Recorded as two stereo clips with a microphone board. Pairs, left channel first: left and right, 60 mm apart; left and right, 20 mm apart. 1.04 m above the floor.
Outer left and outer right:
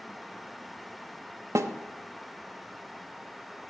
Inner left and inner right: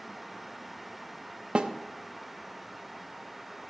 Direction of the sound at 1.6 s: 55° right (ahead or behind).